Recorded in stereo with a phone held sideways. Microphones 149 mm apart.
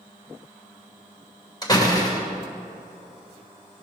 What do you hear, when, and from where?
1.6 s a door slam: 25° left (ahead or behind), 2.5 m